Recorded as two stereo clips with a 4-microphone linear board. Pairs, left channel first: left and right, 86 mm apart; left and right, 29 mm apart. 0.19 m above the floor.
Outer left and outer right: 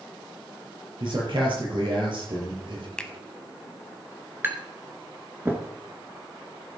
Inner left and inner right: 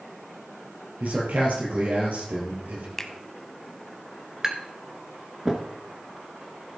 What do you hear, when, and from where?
1.0 s a man speaking: 65° right (ahead or behind), 4 m
3.0 s a finger snap: 10° left (ahead or behind), 0.9 m
4.4 s tapping: 25° right (ahead or behind), 1.5 m